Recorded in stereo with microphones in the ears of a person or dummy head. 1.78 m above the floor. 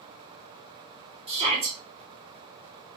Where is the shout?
20° right (ahead or behind), 1.3 m.